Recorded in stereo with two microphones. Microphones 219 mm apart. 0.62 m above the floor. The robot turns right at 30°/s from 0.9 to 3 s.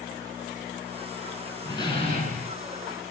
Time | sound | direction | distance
1.6 | a door slam | 15° left (ahead or behind) | 5.5 m